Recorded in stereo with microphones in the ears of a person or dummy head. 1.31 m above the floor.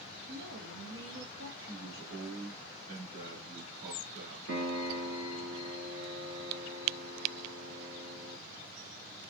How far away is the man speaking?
About 1.8 m.